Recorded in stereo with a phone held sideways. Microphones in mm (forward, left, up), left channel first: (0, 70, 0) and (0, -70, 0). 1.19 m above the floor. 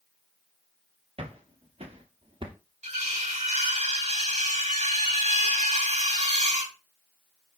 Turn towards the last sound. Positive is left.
turn(degrees=-55)  # may be behind; listen again after turning